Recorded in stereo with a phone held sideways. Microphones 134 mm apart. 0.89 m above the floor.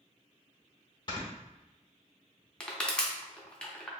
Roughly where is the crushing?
Centre.